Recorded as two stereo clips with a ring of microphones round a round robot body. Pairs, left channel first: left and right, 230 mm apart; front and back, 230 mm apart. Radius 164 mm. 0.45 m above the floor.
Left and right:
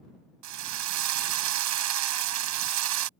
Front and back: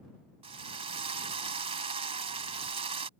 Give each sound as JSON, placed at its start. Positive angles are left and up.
{"t": 0.4, "sound": "a drill", "azimuth_deg": -105}